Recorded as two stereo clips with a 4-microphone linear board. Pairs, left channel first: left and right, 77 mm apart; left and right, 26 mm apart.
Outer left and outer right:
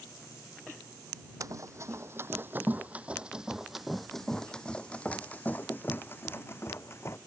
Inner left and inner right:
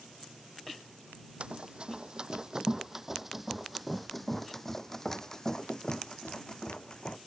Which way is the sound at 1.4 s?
45° right (ahead or behind).